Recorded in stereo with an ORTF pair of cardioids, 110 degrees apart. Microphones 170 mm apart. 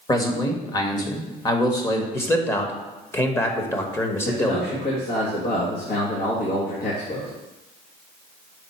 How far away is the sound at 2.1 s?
About 1.2 m.